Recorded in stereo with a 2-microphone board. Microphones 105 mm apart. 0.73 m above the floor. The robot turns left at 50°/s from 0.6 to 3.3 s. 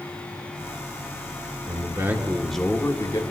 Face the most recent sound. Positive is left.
turn(degrees=135)